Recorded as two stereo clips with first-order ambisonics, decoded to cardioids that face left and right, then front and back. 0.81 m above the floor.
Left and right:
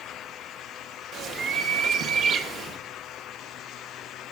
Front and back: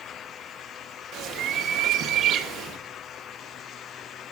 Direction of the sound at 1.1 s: 140° right.